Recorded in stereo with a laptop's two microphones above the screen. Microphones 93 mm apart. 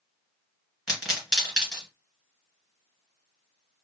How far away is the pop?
About 1.9 m.